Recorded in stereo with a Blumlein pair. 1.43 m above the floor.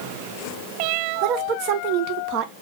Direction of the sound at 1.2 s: 45° right.